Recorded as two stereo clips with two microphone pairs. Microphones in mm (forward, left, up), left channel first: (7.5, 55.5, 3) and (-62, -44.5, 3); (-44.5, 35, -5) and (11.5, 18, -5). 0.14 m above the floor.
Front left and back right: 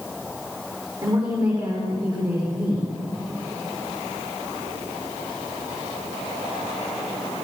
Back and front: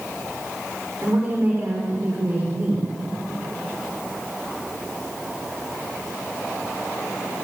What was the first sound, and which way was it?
A woman speaking, 75° right.